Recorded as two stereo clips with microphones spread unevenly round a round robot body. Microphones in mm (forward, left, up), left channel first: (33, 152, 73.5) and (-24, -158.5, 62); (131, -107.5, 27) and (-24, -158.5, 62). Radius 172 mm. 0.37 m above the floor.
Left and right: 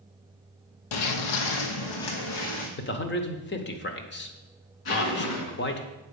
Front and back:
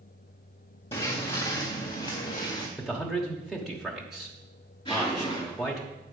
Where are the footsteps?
95° left, 0.9 m; by 2.7 s 90° left, 2 m.